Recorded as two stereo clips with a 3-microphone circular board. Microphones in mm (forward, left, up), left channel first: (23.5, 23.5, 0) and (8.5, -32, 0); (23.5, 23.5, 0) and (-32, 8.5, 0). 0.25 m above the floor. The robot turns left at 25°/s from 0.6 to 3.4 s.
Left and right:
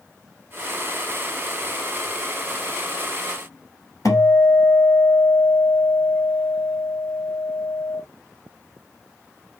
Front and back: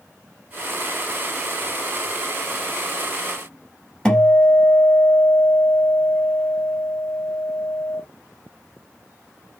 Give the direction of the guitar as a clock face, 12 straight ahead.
9 o'clock.